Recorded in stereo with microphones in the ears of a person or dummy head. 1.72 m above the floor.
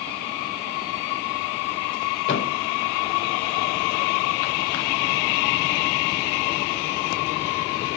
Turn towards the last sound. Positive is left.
turn(degrees=40)  # may be behind; listen again after turning